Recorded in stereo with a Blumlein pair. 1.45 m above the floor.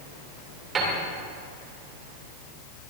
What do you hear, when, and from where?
0.8 s a piano: 20° right, 2.5 m